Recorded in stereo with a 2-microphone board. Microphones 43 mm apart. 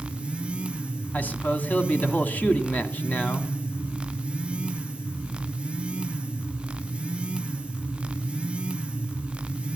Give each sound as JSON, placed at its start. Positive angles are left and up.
{"t": 1.1, "sound": "a man speaking", "side_deg": 45, "distance_m": 1.3}